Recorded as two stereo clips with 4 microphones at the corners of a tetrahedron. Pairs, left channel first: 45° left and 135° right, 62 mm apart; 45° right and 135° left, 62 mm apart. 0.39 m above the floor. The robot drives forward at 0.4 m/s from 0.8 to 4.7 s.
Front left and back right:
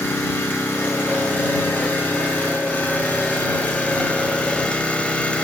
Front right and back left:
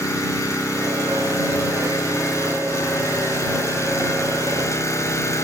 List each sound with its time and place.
0.0 s an engine running: 15° right, 3.5 m; by 5.5 s 25° right, 2 m